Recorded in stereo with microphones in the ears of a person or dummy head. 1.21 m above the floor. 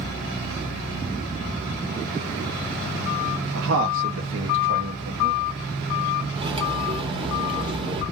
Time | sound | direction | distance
3.5 | a man speaking | 70° right (ahead or behind) | 0.7 m
6.3 | cutlery clinking | 30° right (ahead or behind) | 0.8 m